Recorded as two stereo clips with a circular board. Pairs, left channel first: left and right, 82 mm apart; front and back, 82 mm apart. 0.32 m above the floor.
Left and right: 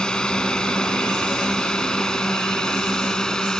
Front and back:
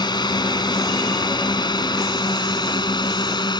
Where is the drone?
10° left.